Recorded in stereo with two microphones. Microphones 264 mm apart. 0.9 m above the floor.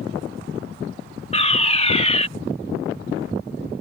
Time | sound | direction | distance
1.3 | a fire alarm | 25° left (ahead or behind) | ?